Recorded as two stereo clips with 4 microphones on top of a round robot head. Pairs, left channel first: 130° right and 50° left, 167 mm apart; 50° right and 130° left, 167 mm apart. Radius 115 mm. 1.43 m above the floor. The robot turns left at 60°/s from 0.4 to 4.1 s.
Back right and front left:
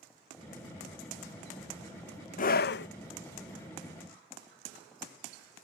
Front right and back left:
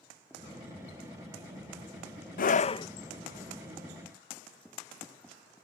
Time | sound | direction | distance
2.4 | a scream | 85° right | ?